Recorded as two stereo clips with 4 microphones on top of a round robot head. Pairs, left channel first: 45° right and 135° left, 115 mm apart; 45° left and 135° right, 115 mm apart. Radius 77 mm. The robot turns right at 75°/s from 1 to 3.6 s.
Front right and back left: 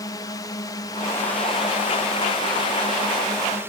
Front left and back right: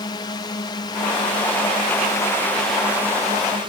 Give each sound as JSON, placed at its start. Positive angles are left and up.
{"t": 0.0, "sound": "a drone", "azimuth_deg": 5}